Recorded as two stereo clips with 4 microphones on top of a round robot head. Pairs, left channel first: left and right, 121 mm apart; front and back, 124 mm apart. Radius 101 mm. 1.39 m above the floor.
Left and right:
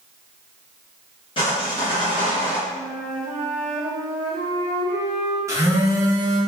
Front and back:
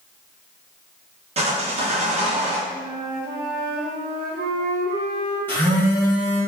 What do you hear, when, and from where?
1.4 s sawing: 145° left, 0.9 m
2.7 s a flute: 170° right, 1.4 m
5.5 s a phone buzzing: 60° right, 0.6 m